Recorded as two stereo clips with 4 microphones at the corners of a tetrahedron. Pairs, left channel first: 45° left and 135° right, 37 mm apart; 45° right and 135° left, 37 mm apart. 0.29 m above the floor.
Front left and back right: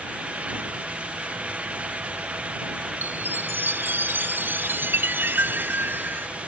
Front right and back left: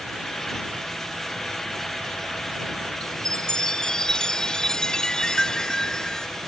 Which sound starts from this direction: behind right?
A chime, at 3.0 s.